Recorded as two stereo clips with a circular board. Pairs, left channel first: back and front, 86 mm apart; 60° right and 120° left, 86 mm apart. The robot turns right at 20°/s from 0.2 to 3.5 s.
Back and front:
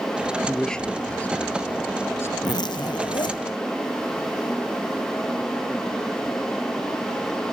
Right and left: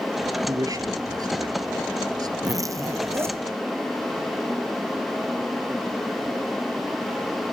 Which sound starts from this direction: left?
A man speaking, at 0.5 s.